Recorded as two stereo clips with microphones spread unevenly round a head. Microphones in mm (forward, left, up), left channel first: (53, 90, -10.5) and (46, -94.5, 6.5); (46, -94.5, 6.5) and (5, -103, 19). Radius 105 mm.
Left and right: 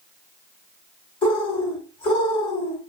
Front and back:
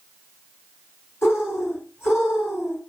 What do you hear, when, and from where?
1.2 s a bird: 40° left, 1.3 m